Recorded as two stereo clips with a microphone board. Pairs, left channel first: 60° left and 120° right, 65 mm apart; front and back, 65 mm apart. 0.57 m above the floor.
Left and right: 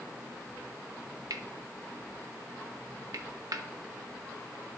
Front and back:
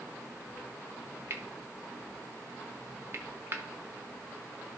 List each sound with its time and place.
1.3 s cutlery clinking: 130° right, 0.8 m